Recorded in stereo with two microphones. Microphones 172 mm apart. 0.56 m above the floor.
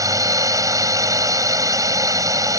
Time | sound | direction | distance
0.0 | a drone | 20° right (ahead or behind) | ?